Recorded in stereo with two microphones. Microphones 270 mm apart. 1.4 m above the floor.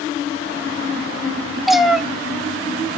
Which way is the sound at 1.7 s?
Centre (ahead or behind).